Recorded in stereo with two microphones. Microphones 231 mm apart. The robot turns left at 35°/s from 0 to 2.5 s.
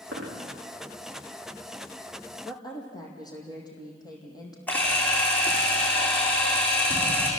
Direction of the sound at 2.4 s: 15° left (ahead or behind).